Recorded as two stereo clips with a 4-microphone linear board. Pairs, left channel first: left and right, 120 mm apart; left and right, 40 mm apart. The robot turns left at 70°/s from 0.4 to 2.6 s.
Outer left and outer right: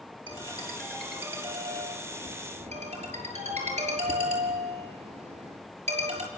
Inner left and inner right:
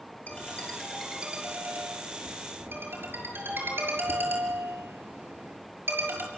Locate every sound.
0.3 s a ringtone: 45° left (ahead or behind), 6.5 m; by 6.3 s 70° right (ahead or behind), 6.5 m